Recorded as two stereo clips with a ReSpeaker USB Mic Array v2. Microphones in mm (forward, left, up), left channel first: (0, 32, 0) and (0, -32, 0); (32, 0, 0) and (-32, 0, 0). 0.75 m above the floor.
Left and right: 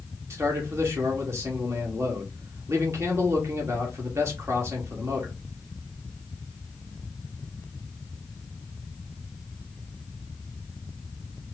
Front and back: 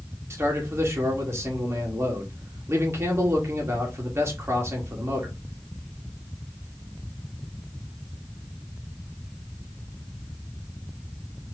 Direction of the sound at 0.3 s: 135° right.